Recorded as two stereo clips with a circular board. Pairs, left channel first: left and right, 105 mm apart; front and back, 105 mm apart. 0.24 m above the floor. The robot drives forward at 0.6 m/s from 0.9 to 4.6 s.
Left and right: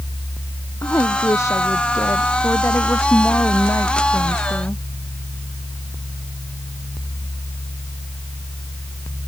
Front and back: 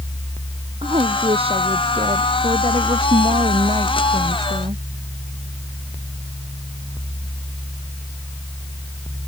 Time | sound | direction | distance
0.8 | a woman speaking | 150° left | ?